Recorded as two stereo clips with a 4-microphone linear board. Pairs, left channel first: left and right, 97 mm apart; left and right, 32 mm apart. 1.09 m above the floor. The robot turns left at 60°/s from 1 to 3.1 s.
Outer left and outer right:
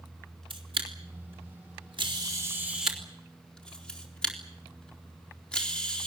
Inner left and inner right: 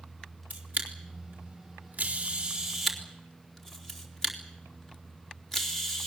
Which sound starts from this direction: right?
A camera shutter, at 0.5 s.